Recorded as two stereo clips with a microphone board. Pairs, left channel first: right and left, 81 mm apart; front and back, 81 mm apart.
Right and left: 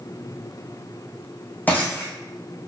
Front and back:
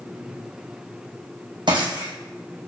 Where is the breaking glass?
160° right, 2.5 m.